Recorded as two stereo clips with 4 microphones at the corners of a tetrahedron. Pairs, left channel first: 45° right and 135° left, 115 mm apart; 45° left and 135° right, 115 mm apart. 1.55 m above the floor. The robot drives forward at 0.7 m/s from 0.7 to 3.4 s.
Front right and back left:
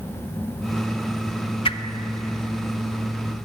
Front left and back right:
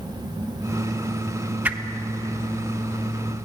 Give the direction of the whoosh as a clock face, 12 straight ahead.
2 o'clock.